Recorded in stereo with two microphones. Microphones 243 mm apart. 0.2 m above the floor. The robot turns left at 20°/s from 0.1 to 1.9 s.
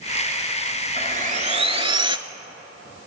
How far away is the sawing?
About 0.5 m.